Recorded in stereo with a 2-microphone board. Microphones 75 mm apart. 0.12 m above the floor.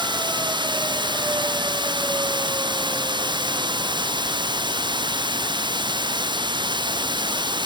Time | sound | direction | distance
0.0 | running water | 80° right | ?